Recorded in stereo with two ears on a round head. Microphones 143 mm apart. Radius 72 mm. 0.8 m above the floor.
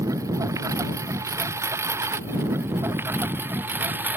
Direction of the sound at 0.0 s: 20° right (ahead or behind).